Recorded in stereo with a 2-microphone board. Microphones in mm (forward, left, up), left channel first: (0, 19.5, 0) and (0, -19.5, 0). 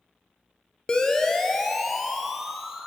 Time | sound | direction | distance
0.9 | a siren | 20° left (ahead or behind) | 3 m